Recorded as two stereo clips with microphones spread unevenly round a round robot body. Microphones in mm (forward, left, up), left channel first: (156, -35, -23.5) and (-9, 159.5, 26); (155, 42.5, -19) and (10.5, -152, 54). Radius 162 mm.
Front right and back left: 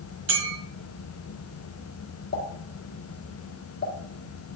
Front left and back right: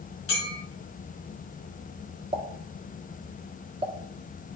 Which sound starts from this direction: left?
A clink, at 0.3 s.